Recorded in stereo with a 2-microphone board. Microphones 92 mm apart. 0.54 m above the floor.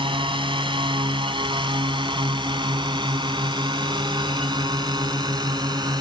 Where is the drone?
65° right (ahead or behind); by 6.0 s 50° right (ahead or behind).